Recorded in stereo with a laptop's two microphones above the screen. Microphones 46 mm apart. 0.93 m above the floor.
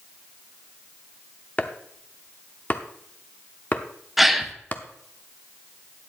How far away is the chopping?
About 0.6 m.